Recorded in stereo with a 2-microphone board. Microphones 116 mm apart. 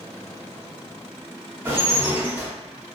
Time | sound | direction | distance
1.6 | dishes clattering | 20° right (ahead or behind) | 1.8 m